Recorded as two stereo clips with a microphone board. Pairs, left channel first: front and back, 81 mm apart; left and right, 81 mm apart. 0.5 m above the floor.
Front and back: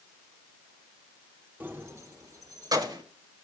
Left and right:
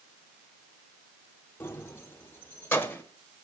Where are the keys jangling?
125° left, 0.7 m; by 3.0 s 155° left, 1.7 m.